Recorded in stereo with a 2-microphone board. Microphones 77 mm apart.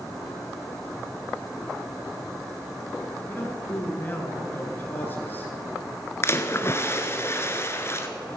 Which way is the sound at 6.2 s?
35° left (ahead or behind).